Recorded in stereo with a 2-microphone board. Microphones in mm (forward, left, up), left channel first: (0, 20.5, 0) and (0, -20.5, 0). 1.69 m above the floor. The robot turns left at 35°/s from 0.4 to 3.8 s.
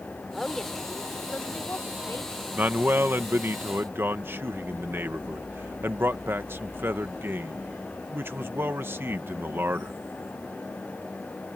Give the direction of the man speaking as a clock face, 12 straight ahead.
2 o'clock.